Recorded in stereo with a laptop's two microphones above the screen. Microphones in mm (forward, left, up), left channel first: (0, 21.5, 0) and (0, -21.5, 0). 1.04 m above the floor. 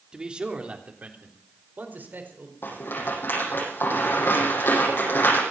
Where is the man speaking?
20° right (ahead or behind), 3 m; by 2.5 s 50° right (ahead or behind), 4.5 m.